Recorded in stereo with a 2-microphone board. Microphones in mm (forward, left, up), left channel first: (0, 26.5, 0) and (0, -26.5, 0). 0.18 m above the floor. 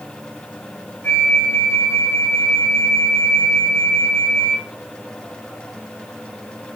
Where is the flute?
35° left (ahead or behind), 3.5 m.